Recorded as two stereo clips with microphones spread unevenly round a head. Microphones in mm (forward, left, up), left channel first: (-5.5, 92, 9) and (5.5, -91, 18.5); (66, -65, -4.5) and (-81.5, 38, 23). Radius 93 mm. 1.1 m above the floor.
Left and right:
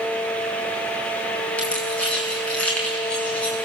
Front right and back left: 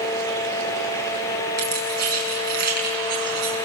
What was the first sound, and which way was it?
Keys jangling, 175° left.